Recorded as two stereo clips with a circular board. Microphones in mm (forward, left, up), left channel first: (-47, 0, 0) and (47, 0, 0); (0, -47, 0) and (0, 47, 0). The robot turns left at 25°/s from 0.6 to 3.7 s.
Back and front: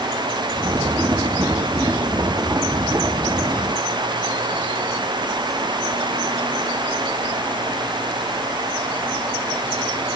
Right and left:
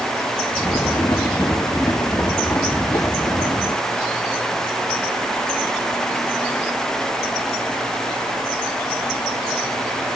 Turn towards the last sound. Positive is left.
No sound to turn to.